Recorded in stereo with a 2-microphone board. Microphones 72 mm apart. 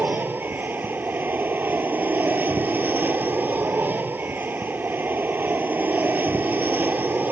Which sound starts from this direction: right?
An aircraft, at 0.0 s.